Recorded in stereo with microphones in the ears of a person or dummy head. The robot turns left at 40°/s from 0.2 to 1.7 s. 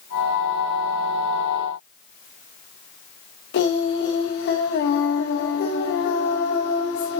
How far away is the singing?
About 2.5 m.